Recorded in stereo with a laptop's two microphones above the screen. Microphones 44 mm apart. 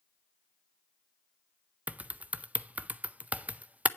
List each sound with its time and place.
1.9 s typing on a keyboard: 35° right (ahead or behind), 0.5 m